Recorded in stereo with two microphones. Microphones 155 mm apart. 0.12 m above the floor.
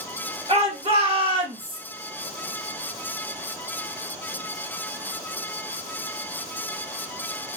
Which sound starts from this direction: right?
A shout, at 0.5 s.